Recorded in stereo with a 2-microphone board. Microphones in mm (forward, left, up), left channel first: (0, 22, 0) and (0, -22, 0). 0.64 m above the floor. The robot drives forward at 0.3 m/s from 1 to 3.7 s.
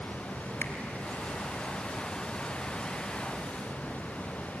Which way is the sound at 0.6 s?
65° left (ahead or behind).